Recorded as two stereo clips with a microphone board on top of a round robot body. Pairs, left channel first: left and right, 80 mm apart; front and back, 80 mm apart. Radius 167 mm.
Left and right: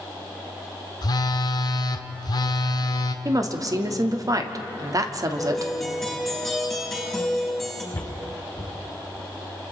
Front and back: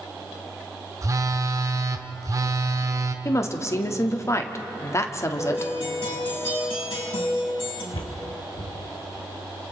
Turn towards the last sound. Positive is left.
turn(degrees=20)